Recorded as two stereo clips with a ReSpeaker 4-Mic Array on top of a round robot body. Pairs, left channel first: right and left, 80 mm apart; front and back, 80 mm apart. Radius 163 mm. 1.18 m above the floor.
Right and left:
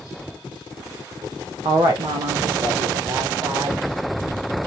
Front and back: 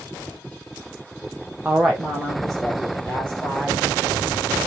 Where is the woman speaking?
105° left, 0.9 m; by 3.8 s 75° left, 3 m.